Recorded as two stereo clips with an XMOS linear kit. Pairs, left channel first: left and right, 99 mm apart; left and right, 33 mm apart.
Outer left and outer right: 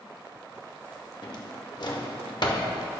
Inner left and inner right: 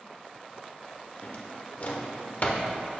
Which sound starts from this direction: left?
A drawer, at 1.2 s.